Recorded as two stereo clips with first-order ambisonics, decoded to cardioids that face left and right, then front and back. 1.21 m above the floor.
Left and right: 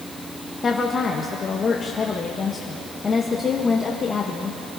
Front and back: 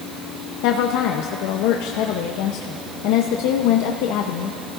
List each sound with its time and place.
0.6 s a woman speaking: 20° left, 0.8 m